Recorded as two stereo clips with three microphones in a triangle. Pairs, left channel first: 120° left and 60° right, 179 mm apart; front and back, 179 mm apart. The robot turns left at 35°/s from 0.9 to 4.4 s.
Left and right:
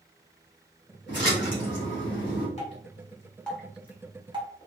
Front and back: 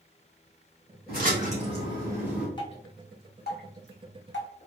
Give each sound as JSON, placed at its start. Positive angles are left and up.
{"t": 1.1, "sound": "a splash", "azimuth_deg": 140, "distance_m": 1.9}
{"t": 2.6, "sound": "dripping", "azimuth_deg": 65, "distance_m": 1.3}